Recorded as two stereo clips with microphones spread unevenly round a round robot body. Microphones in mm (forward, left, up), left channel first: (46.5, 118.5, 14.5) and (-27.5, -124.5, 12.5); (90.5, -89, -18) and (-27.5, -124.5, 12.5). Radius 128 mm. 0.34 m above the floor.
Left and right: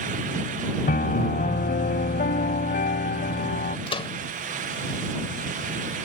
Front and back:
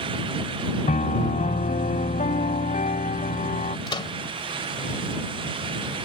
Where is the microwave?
10° left.